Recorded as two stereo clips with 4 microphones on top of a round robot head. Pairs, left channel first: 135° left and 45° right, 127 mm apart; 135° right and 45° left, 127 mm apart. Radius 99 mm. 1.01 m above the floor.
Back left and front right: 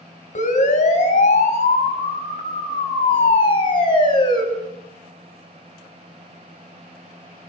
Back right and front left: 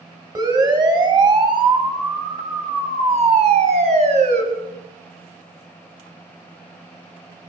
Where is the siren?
105° left, 6.5 m; by 4.4 s 80° left, 6.5 m.